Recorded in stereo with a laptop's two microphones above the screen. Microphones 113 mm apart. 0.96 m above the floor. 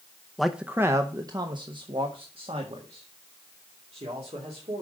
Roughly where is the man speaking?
Centre.